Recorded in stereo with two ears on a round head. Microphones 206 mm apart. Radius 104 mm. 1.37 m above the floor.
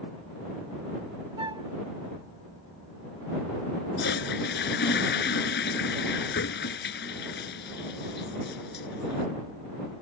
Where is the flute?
20° right (ahead or behind).